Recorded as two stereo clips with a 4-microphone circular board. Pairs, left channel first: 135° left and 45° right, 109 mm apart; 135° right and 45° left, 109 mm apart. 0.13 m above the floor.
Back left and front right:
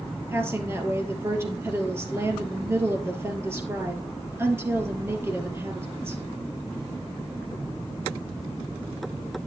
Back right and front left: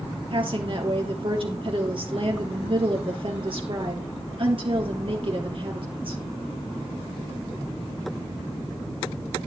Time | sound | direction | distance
0.3 | a woman speaking | 20° left | 3 m